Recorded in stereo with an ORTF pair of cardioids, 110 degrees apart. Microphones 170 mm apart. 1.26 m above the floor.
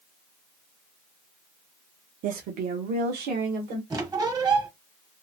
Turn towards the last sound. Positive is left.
turn(degrees=-25)